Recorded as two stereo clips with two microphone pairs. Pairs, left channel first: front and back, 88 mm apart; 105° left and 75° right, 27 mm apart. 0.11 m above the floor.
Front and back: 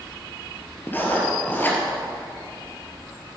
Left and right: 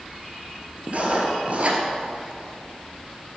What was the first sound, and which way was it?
Writing, 60° right.